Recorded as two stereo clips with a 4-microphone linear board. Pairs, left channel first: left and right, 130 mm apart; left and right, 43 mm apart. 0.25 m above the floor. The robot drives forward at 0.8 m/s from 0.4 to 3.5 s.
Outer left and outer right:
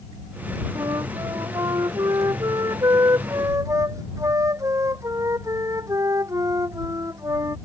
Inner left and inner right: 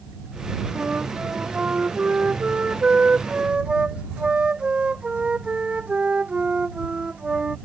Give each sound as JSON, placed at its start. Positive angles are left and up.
{"t": 0.8, "sound": "a flute", "side_deg": -30}